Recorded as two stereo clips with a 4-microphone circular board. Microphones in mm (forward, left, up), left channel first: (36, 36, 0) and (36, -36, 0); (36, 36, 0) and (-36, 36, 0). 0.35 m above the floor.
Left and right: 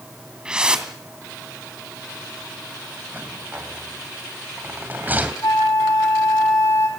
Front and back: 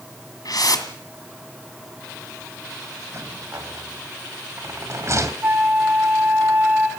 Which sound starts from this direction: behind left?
A flute, at 5.4 s.